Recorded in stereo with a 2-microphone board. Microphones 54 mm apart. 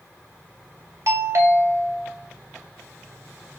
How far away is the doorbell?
About 2.5 m.